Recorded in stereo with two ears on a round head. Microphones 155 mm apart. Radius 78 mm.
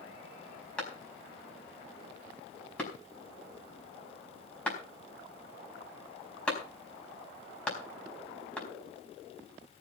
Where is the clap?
5° left (ahead or behind), 4.5 m.